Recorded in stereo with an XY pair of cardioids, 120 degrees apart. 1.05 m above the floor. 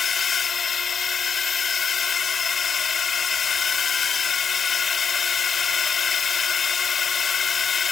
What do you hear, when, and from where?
0.0 s a drone: 35° left